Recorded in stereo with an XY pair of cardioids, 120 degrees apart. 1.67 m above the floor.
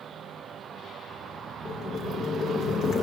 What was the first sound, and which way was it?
Boiling, 55° left.